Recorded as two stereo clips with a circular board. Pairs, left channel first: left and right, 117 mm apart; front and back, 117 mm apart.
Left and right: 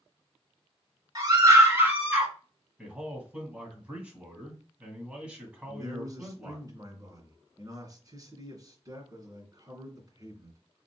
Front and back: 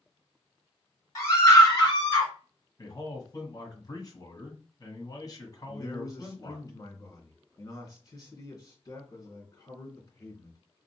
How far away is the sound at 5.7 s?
About 2.5 m.